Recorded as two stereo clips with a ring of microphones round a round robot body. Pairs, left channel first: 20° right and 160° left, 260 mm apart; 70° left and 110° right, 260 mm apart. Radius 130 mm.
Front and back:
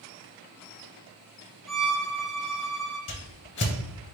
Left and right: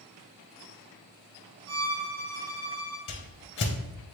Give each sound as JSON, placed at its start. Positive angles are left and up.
{"t": 1.7, "sound": "a violin", "azimuth_deg": -115, "distance_m": 1.3}
{"t": 3.1, "sound": "a whoosh", "azimuth_deg": 20, "distance_m": 0.6}